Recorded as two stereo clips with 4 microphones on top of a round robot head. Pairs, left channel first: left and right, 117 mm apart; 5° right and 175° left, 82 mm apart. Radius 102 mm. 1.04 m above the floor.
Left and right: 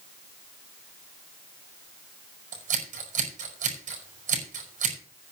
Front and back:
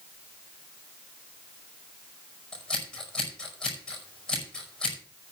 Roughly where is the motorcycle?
No motorcycle in this recording.